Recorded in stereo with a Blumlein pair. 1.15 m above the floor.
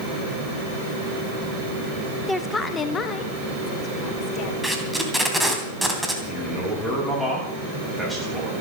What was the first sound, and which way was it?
A woman speaking, straight ahead.